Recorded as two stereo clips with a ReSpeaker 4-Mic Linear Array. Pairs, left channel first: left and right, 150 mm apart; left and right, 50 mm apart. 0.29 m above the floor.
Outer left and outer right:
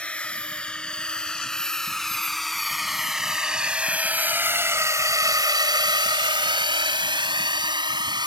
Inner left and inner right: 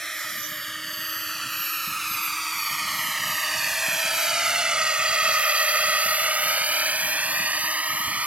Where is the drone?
10° left (ahead or behind); by 8.3 s 30° right (ahead or behind).